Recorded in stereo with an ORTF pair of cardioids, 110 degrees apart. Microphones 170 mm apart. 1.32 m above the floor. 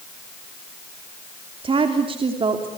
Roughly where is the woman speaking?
Ahead right.